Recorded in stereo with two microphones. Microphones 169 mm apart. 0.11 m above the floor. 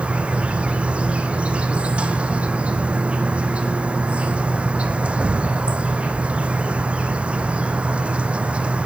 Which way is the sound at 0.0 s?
5° right (ahead or behind).